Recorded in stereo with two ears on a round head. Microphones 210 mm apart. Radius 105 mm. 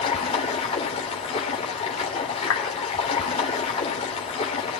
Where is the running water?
25° left (ahead or behind), 2.5 m.